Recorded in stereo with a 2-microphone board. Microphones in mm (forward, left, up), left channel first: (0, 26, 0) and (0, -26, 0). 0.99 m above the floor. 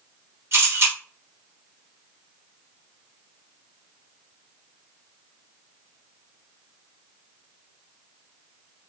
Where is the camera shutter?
55° right (ahead or behind), 1.9 m.